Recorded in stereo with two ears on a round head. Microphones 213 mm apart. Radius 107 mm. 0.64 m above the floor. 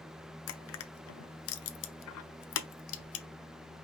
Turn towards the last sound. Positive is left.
turn(degrees=65)  # may be behind; listen again after turning